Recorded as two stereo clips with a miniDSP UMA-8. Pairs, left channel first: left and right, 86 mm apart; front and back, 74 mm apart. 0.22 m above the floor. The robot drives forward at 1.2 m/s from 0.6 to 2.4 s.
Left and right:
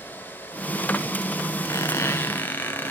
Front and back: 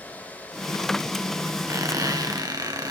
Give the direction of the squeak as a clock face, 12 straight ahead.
7 o'clock.